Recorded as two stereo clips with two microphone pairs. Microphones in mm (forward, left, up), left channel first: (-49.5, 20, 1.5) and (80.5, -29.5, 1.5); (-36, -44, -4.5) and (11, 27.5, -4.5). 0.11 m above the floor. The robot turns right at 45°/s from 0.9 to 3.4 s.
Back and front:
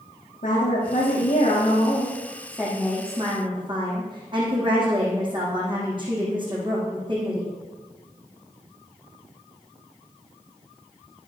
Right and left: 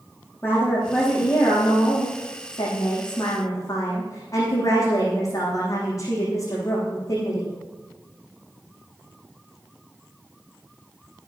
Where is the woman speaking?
175° left, 6.5 m; by 7.5 s 75° right, 6.5 m.